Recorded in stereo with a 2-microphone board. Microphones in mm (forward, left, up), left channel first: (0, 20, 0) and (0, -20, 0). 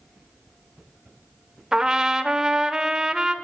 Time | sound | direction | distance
1.7 | a trumpet | 15° right (ahead or behind) | 0.7 m